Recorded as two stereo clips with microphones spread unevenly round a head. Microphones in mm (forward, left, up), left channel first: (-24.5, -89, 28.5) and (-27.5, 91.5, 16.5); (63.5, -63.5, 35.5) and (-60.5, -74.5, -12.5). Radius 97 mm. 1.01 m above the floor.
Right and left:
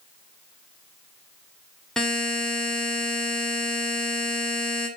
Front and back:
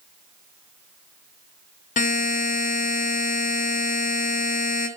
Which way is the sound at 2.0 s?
5° right.